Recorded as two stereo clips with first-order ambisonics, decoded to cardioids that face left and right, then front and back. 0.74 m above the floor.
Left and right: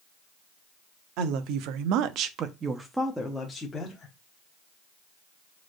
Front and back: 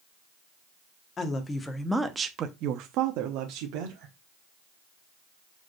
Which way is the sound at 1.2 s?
65° right.